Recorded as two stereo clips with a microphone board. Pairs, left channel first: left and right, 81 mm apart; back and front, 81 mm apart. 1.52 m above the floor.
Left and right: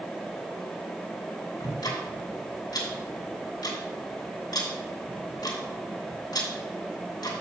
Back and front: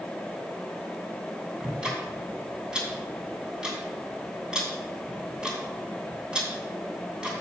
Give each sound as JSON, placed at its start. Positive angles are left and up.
{"t": 1.6, "sound": "ticking", "azimuth_deg": 80, "distance_m": 2.5}